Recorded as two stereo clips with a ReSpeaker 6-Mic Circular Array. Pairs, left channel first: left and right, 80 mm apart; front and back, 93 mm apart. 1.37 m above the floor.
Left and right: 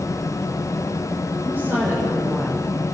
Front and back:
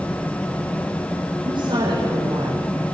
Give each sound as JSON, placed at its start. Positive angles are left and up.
{"t": 1.4, "sound": "a woman speaking", "azimuth_deg": -150, "distance_m": 6.5}